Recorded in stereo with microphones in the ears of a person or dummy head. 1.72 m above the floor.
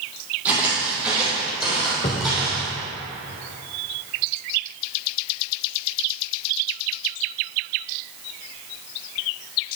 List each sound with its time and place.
0.5 s footsteps: 10° right (ahead or behind), 3.5 m; by 2.7 s centre (ahead or behind), 4 m
2.0 s a cupboard door: 20° left (ahead or behind), 0.7 m